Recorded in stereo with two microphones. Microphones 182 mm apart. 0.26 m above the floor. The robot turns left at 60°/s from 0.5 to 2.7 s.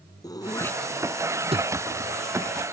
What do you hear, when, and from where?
0.2 s throat clearing: 20° left (ahead or behind); by 1.7 s 45° right (ahead or behind)